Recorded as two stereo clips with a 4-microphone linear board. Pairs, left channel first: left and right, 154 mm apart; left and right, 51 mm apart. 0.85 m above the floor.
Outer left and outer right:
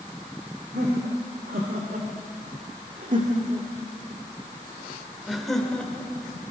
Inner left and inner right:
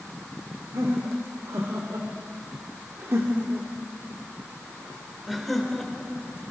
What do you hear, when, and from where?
0.7 s laughter: 75° right (ahead or behind), 3 m; by 6.2 s 10° left (ahead or behind), 3 m